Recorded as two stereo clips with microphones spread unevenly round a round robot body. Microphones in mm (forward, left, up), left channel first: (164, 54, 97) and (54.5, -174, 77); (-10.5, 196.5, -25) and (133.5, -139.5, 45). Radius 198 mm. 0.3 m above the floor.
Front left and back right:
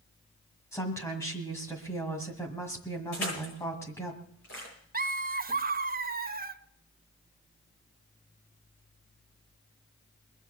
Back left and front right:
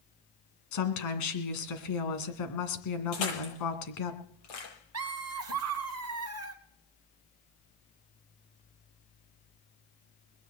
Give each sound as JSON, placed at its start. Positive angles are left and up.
{"t": 0.7, "sound": "a woman speaking", "azimuth_deg": 145, "distance_m": 2.0}
{"t": 3.1, "sound": "crushing", "azimuth_deg": 120, "distance_m": 9.0}
{"t": 4.9, "sound": "laughter", "azimuth_deg": -110, "distance_m": 1.2}